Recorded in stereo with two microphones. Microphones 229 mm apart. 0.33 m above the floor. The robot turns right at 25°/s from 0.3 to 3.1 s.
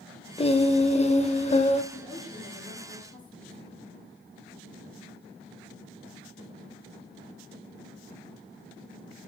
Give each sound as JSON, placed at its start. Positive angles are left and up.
{"t": 0.4, "sound": "singing", "side_deg": 25, "distance_m": 0.5}
{"t": 1.9, "sound": "a woman speaking", "side_deg": 10, "distance_m": 3.5}